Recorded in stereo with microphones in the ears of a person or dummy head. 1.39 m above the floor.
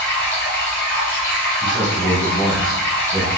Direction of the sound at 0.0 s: 15° left (ahead or behind).